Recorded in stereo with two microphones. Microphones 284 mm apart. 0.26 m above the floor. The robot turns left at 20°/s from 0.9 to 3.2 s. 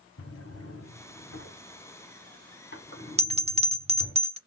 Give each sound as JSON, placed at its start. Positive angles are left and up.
{"t": 0.2, "sound": "a drawer", "side_deg": 60, "distance_m": 1.0}
{"t": 3.2, "sound": "a bell", "side_deg": -25, "distance_m": 0.6}